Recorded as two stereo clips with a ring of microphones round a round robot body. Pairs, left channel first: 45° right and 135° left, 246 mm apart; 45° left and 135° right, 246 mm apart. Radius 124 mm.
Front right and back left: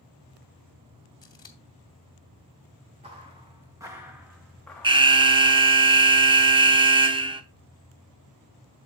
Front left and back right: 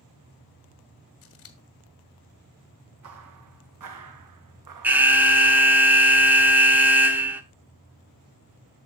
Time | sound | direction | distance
1.2 | scissors | 25° left | 1.4 m
3.0 | footsteps | 160° right | 2 m
4.8 | an alarm | 155° left | 0.9 m